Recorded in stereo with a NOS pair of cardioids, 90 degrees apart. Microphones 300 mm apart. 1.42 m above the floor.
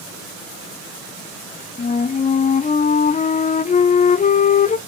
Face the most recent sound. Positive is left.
turn(degrees=25)